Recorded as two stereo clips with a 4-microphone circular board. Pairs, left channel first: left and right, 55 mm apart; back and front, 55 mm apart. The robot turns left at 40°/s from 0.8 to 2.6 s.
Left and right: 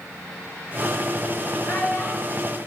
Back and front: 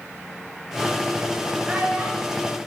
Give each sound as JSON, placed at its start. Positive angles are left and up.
{"t": 1.6, "sound": "a child speaking", "azimuth_deg": 100, "distance_m": 4.0}